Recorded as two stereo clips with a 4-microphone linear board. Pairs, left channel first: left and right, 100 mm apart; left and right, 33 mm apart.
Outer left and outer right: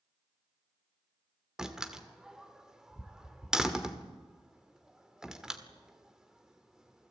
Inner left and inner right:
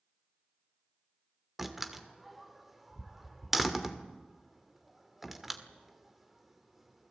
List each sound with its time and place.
1.6 s a door slam: 5° right (ahead or behind), 1.9 m